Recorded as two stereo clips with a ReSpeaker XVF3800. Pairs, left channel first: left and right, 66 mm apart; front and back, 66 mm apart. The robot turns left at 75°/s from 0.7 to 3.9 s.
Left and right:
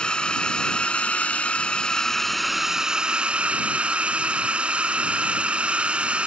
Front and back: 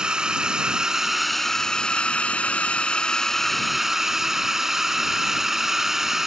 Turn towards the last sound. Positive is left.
turn(degrees=-110)